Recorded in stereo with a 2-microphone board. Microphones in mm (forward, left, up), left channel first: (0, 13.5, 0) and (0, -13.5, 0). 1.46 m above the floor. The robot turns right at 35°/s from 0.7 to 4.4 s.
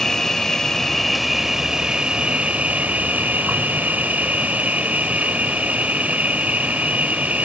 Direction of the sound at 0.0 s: 165° left.